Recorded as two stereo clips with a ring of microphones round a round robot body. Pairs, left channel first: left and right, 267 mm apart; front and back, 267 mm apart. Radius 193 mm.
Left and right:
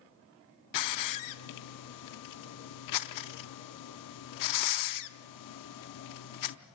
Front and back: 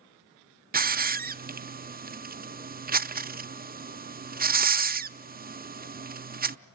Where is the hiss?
115° left, 0.5 m.